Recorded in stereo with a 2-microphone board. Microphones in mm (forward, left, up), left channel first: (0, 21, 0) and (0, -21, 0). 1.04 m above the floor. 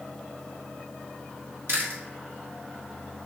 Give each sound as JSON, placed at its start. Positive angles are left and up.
{"t": 1.7, "sound": "chewing", "side_deg": -85, "distance_m": 2.5}